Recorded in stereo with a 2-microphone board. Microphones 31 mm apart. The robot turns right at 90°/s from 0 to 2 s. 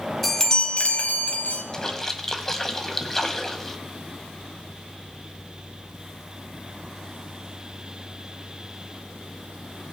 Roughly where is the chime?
Ahead.